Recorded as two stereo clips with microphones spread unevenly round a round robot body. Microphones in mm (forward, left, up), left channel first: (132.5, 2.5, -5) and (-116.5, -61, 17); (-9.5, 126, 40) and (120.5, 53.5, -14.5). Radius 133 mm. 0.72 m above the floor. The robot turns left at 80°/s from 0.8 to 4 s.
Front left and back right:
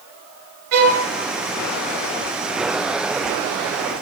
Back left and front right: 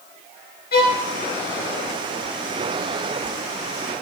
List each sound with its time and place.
0.7 s a violin: 160° left, 1.4 m; by 1.0 s 140° left, 1.4 m